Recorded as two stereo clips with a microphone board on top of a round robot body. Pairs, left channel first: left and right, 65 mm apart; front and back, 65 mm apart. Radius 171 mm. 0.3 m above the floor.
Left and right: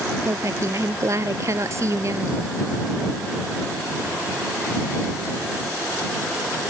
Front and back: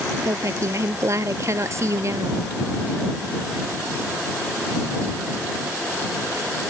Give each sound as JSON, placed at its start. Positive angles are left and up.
{"t": 0.2, "sound": "a woman speaking", "azimuth_deg": -135}